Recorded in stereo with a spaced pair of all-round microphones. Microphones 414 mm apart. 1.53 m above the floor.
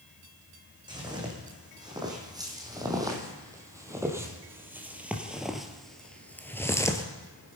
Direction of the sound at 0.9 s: 10° right (ahead or behind).